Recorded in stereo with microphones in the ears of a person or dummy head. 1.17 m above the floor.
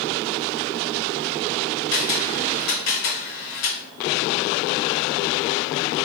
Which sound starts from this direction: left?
A camera shutter, at 1.9 s.